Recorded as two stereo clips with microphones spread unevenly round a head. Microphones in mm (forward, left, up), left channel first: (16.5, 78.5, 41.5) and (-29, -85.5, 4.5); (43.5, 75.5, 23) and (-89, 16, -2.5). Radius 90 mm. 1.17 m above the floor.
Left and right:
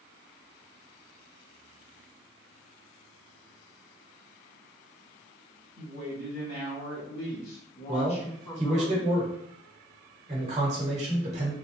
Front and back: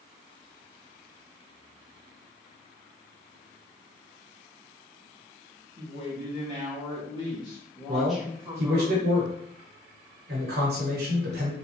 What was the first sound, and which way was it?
A woman speaking, 55° left.